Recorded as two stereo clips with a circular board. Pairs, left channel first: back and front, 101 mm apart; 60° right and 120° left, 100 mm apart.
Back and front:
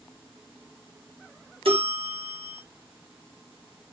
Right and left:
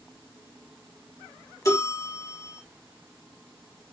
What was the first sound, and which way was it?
A bell, 5° right.